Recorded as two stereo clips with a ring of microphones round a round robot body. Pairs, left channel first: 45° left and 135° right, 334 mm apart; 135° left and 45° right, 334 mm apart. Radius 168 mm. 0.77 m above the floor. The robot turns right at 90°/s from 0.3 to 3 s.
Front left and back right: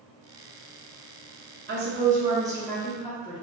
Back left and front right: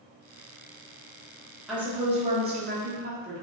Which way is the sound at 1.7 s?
135° right.